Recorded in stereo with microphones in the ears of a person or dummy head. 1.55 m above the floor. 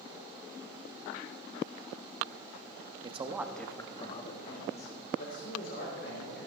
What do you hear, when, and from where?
3.0 s a man speaking: 35° right (ahead or behind), 0.9 m; by 6.5 s 65° left (ahead or behind), 3 m